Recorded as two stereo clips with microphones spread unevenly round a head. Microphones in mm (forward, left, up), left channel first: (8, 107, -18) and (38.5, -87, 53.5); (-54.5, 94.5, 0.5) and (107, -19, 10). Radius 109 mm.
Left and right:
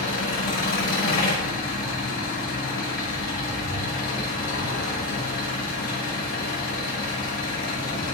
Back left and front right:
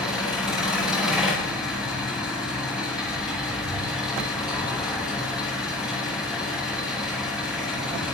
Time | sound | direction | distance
0.0 | an engine running | 50° left | 8 m